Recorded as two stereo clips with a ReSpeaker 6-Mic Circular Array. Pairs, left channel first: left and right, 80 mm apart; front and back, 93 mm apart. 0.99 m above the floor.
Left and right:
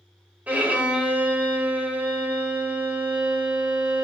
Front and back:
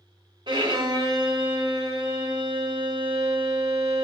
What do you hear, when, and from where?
0.5 s a violin: 160° right, 1.4 m